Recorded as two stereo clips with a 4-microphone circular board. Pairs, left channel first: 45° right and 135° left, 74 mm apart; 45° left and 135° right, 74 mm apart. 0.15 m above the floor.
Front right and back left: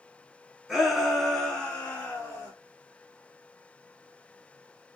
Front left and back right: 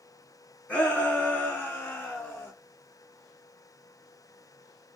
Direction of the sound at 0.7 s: 65° left.